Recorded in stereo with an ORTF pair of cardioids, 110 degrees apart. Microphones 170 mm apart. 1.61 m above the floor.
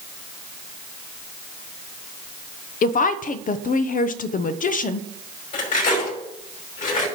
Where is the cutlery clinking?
50° left, 5.5 m.